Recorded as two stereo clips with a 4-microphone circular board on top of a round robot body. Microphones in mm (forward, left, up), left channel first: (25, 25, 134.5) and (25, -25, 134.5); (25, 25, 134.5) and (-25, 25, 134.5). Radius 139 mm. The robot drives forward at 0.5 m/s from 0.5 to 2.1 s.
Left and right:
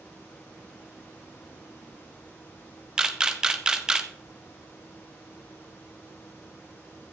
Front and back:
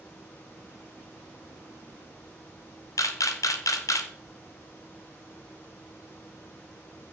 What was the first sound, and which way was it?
A camera shutter, 10° right.